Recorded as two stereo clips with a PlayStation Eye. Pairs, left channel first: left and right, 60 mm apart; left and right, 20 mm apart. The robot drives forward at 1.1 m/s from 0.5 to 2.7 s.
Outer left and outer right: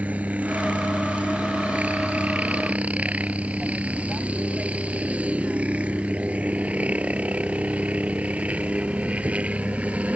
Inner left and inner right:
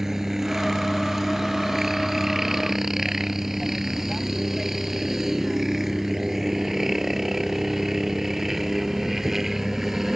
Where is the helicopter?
25° right (ahead or behind); by 10.2 s 20° right (ahead or behind).